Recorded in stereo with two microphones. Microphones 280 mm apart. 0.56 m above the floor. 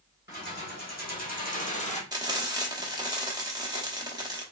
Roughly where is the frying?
Centre.